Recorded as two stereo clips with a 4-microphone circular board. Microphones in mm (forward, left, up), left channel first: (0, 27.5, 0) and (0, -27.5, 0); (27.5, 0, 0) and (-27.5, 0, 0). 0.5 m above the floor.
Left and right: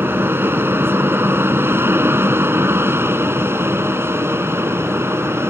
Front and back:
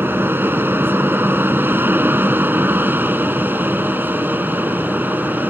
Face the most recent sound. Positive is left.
turn(degrees=-130)